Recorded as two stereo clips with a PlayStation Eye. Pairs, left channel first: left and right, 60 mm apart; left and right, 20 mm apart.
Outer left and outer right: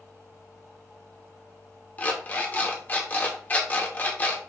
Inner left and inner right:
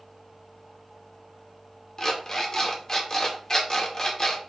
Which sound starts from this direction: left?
An alarm clock, at 2.0 s.